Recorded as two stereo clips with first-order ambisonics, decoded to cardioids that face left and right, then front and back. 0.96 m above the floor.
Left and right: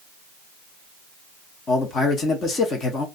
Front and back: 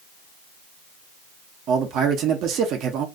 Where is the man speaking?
150° left, 1.0 m.